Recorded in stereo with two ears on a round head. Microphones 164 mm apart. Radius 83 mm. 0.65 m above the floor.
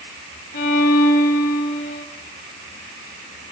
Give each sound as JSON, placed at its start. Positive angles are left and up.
{"t": 0.5, "sound": "a violin", "side_deg": 50, "distance_m": 3.5}